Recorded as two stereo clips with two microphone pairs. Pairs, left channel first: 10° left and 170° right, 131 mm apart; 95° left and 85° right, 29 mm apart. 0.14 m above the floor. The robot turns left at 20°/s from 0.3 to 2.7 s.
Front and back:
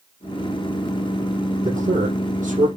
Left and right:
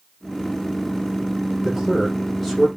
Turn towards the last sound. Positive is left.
turn(degrees=175)